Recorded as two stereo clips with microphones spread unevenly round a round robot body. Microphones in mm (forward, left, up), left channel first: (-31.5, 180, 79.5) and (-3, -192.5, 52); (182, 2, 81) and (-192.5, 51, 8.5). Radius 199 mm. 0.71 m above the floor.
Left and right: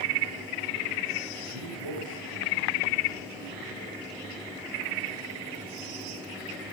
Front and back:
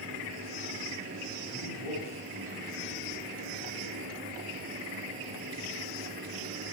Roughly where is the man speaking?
Right.